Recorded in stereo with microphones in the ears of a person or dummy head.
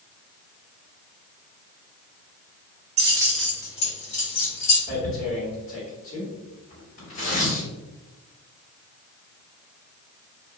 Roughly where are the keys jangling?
Right.